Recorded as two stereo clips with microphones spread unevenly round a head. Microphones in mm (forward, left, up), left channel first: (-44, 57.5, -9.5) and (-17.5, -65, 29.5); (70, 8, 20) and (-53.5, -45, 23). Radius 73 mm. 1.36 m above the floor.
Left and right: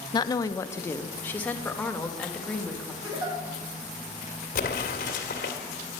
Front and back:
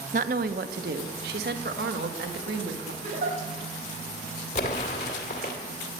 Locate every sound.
0.1 s a woman speaking: 165° left, 0.7 m; by 2.9 s 170° right, 2 m
3.0 s a giggle: 120° right, 5.5 m
4.5 s an explosion: 65° left, 2 m